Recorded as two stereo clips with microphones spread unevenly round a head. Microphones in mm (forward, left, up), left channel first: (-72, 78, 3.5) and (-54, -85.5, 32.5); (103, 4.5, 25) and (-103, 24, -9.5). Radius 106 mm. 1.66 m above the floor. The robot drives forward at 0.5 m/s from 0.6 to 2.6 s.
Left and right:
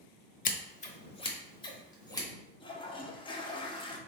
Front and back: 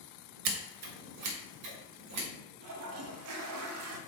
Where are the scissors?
140° left, 0.6 m; by 2.3 s 165° left, 1.3 m.